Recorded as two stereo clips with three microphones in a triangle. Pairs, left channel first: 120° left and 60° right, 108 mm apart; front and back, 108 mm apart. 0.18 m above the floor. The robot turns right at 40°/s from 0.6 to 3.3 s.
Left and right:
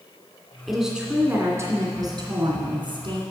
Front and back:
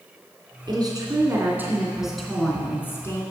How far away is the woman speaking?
About 2.5 m.